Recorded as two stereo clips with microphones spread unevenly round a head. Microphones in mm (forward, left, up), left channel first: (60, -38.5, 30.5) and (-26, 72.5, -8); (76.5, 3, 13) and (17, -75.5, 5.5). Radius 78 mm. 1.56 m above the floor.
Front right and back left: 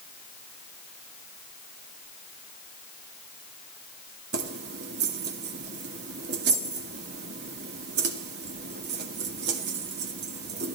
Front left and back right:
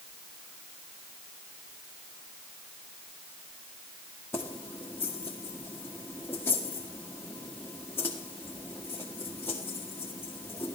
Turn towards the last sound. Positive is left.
turn(degrees=125)